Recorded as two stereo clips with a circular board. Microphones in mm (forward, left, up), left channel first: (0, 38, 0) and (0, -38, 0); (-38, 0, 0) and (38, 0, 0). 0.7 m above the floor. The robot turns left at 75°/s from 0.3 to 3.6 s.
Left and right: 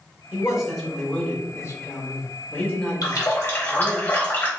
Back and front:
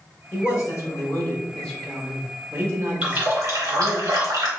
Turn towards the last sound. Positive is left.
turn(degrees=30)